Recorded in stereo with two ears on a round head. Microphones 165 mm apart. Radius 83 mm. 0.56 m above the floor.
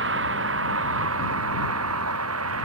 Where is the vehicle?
65° right (ahead or behind); by 2.6 s 90° right.